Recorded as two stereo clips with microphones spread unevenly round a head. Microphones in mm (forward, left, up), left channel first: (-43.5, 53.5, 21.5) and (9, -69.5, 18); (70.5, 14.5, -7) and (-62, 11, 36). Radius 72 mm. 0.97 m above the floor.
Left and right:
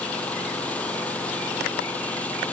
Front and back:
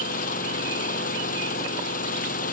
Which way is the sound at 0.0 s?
30° left.